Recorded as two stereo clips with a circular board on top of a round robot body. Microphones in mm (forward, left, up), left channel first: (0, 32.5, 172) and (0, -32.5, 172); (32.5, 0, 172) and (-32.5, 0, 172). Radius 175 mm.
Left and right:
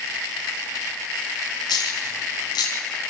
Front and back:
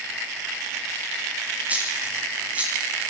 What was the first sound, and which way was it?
A dropped coin, 110° left.